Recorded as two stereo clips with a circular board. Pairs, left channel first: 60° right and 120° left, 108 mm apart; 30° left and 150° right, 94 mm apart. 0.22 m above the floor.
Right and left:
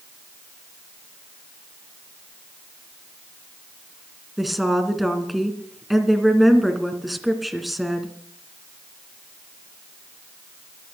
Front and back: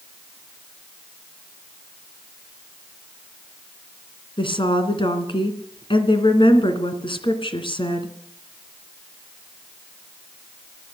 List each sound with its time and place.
4.4 s a woman speaking: 30° left, 2.5 m